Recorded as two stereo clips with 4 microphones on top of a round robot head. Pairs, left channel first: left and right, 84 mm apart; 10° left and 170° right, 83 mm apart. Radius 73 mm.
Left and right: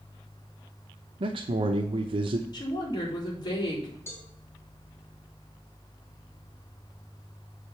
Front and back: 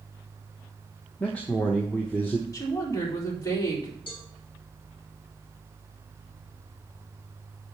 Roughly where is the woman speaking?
Ahead left.